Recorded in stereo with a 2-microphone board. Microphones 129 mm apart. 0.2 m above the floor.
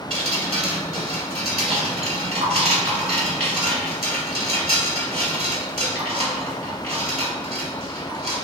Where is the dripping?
55° right (ahead or behind), 1.2 m.